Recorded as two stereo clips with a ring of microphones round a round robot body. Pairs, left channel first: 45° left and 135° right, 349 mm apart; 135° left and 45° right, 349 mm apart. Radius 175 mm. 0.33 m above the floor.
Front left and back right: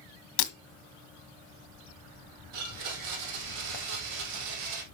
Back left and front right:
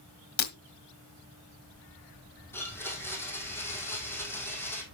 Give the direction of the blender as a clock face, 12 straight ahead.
5 o'clock.